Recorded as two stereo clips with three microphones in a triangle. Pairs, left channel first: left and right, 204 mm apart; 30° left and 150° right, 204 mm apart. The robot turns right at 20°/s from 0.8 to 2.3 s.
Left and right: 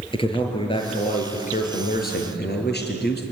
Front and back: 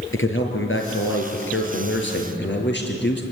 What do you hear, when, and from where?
0.1 s a man speaking: 25° left, 5 m; by 3.2 s 55° left, 5 m